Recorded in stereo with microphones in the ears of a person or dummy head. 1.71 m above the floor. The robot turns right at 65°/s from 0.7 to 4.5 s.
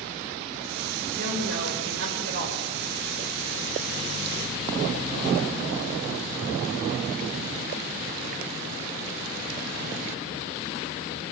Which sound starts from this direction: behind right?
A woman speaking, at 1.1 s.